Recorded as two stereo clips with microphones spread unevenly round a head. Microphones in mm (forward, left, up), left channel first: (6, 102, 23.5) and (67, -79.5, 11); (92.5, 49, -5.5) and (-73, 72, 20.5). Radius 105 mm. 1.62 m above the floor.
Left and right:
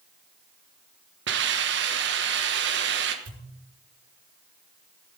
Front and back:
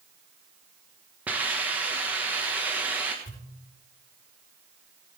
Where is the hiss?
110° right, 1.1 m.